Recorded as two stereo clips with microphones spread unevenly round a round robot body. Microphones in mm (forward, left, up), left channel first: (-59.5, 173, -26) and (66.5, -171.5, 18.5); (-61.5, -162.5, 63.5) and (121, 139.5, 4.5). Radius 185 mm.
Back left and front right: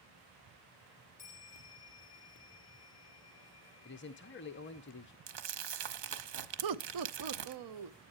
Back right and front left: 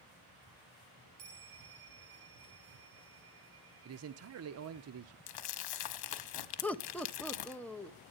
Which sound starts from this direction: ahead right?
Laughter, at 6.6 s.